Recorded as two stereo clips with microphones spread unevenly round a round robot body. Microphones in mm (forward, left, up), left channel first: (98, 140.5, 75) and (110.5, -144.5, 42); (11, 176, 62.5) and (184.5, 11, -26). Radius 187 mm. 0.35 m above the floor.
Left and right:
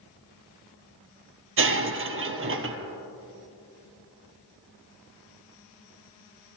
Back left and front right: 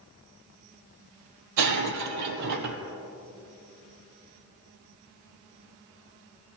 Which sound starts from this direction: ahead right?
Breaking glass, at 1.6 s.